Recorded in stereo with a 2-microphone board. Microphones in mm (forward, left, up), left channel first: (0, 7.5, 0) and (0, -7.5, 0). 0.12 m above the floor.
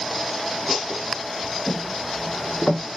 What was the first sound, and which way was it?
Footsteps, 55° left (ahead or behind).